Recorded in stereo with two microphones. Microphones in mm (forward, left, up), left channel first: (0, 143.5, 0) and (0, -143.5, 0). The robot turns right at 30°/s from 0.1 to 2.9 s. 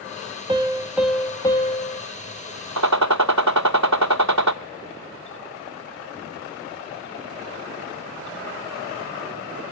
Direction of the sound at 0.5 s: 20° right.